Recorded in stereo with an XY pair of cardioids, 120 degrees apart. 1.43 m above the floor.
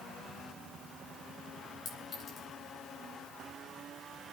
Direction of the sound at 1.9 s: 50° left.